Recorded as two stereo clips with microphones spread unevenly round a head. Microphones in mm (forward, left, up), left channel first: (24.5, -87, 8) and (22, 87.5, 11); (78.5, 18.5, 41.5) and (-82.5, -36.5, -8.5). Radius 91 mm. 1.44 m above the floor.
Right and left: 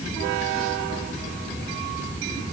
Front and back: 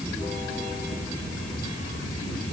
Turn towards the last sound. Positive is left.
No sound to turn to.